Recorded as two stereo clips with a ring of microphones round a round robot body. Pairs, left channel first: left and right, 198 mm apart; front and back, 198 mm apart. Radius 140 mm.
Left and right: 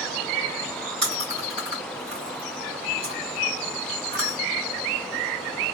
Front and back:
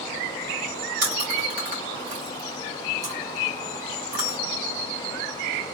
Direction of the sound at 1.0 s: 145° right.